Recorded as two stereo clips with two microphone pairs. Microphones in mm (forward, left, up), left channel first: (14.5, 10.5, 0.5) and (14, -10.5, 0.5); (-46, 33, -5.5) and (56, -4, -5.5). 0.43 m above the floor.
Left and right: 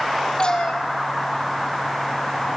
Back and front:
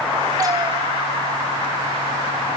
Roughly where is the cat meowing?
Ahead left.